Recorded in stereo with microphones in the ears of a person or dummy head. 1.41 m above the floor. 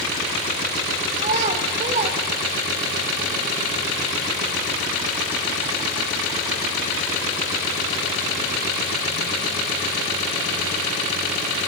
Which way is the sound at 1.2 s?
40° right (ahead or behind).